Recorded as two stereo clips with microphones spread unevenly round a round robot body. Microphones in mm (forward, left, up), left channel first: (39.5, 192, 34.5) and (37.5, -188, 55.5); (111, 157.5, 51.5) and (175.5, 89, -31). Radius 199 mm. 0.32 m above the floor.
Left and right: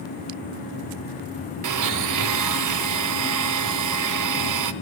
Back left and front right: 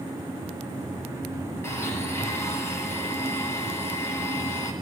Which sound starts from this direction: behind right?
A blender, at 1.6 s.